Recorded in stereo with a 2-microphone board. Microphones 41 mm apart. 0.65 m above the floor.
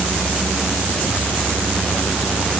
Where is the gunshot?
I don't hear a gunshot.